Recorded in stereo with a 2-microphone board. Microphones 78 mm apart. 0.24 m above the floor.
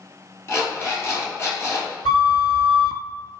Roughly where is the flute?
Left.